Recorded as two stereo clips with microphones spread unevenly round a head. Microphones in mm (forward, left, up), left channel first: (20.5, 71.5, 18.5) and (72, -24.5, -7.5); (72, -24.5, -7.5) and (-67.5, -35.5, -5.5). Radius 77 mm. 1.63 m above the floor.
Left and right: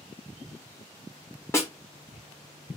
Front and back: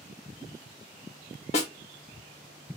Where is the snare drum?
55° left, 1.2 m.